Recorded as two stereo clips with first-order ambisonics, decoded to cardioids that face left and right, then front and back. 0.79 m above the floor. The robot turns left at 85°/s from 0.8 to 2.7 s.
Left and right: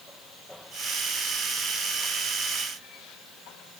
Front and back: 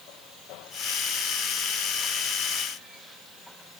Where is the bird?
No bird in this recording.